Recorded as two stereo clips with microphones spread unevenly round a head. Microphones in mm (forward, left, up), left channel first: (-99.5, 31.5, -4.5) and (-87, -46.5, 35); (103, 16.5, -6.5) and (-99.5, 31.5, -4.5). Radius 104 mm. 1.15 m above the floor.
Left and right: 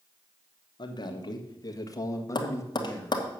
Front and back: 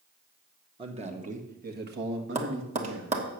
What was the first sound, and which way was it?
A man speaking, 110° left.